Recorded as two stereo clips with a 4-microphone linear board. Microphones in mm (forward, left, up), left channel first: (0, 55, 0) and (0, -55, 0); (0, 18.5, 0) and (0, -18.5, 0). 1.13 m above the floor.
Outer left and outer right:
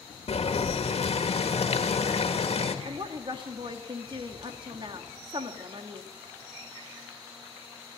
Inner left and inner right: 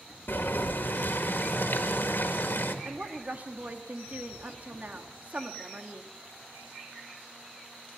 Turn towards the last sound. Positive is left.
turn(degrees=-45)  # may be behind; listen again after turning